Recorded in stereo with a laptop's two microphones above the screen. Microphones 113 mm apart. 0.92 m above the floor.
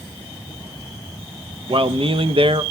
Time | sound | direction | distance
1.7 | a man speaking | 55° right (ahead or behind) | 0.5 m